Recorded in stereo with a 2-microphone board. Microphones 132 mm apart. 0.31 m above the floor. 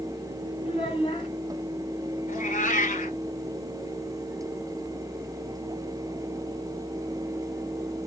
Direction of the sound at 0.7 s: 45° left (ahead or behind).